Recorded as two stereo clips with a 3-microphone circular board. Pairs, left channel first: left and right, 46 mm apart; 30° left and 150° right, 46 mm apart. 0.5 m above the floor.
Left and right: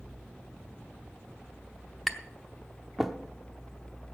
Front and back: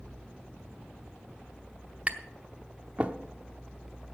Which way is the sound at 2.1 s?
175° right.